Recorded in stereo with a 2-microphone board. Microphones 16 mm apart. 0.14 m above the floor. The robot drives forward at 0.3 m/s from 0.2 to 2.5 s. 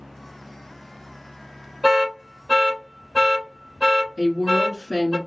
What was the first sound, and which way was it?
An alarm, 25° right (ahead or behind).